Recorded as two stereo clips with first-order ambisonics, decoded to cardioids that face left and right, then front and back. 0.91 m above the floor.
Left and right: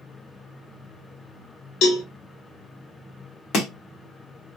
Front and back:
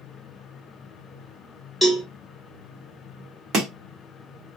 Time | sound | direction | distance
1.8 | a cowbell | 95° left | 0.8 m
3.5 | chopping | 130° left | 1.1 m